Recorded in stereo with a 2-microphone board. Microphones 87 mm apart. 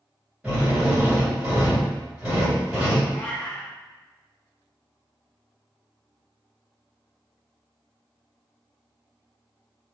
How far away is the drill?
About 1.7 m.